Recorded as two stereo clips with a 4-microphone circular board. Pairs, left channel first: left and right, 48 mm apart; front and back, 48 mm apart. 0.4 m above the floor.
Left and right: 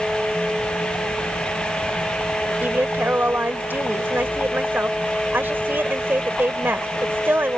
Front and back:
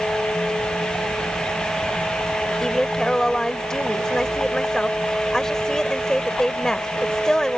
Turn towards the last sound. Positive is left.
turn(degrees=-75)